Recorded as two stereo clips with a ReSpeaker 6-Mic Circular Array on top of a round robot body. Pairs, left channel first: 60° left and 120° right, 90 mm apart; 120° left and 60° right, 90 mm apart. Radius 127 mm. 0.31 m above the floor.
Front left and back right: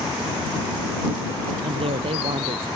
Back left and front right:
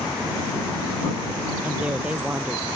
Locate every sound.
1.6 s a woman speaking: 140° right